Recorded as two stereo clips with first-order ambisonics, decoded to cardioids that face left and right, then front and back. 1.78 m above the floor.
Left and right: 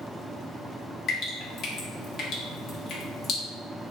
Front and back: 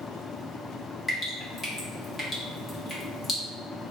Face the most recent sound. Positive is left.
turn(degrees=70)